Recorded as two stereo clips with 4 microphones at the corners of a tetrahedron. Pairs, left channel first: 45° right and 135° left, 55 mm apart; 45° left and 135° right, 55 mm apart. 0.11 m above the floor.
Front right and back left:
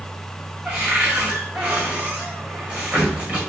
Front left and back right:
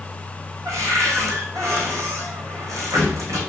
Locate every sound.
0.7 s a cupboard door: 160° right, 5 m